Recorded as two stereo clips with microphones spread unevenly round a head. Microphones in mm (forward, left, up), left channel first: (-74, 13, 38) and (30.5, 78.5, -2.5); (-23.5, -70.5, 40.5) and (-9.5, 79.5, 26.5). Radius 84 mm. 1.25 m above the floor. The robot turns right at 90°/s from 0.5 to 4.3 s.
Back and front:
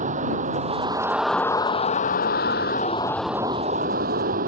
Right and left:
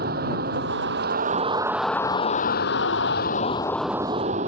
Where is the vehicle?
55° left; by 4.5 s 35° left.